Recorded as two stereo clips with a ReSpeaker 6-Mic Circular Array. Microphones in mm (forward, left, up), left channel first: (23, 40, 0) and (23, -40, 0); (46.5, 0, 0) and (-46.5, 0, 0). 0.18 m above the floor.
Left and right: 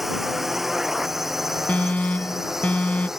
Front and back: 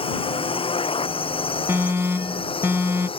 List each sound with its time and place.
0.0 s a drone: straight ahead; by 3.2 s 5° right
1.7 s an alarm: 145° left